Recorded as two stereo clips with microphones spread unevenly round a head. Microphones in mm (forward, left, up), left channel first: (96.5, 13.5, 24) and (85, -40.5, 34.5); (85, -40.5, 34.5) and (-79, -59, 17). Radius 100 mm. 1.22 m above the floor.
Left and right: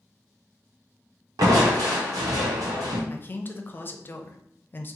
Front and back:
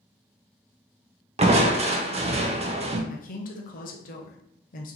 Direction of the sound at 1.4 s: 125° right.